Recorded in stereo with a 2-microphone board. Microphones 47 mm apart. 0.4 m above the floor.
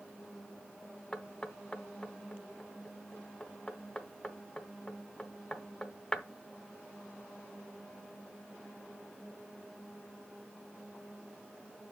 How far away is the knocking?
About 0.7 m.